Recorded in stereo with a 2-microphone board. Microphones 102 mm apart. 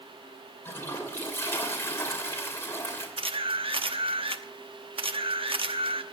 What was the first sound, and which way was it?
A toilet flushing, 25° left (ahead or behind).